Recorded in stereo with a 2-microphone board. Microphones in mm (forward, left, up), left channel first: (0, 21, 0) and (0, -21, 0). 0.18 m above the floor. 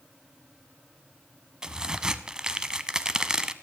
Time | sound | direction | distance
1.6 | a crack | 15° right (ahead or behind) | 0.7 m